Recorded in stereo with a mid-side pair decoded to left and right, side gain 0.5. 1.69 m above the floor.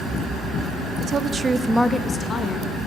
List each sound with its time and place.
1.0 s a woman speaking: 55° right, 1.0 m; by 2.8 s 55° left, 1.4 m